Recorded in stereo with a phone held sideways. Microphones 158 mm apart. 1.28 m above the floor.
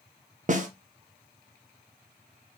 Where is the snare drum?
50° right (ahead or behind), 0.6 m.